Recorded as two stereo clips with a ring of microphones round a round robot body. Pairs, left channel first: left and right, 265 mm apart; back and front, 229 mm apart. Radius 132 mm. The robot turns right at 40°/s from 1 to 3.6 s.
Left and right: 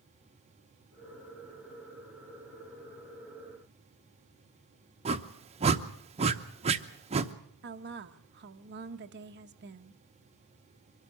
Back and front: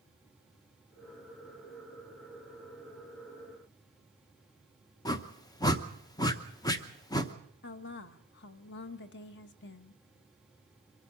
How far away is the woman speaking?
About 1.0 m.